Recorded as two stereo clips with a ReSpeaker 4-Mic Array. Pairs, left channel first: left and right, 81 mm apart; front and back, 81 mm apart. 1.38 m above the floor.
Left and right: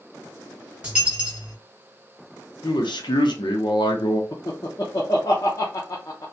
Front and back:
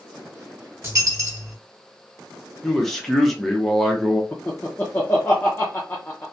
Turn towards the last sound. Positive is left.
turn(degrees=65)